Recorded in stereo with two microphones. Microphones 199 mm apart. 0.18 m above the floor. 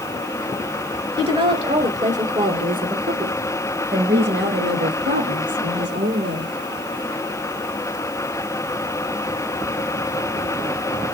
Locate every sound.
1.2 s a woman speaking: 25° right (ahead or behind), 2.5 m; by 6.5 s 75° right (ahead or behind), 5 m